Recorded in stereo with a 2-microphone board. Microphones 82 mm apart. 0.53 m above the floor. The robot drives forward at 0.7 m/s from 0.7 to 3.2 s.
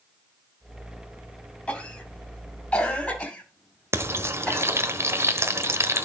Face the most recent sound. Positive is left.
turn(degrees=-30)  # may be behind; listen again after turning